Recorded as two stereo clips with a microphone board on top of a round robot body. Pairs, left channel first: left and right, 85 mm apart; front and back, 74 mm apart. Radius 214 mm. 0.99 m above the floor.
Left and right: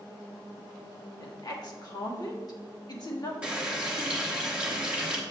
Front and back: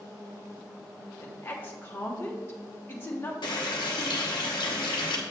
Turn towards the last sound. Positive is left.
turn(degrees=-10)